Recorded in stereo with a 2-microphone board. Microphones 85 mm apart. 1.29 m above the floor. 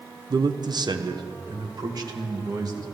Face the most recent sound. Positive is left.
turn(degrees=-50)  # may be behind; listen again after turning